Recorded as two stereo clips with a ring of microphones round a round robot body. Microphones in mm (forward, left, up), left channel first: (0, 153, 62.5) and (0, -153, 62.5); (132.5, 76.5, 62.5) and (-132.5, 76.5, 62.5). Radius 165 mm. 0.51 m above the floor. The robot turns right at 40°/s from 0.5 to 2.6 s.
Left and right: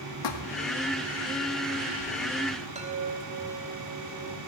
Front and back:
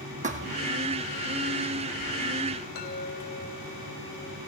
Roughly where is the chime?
Ahead right.